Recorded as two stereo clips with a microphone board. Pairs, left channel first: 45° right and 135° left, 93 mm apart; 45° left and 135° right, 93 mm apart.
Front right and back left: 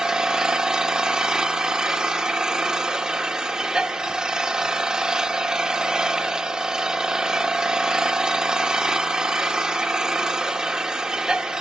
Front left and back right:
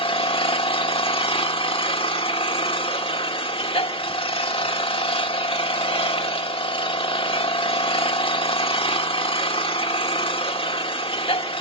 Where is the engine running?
55° left, 1.4 m.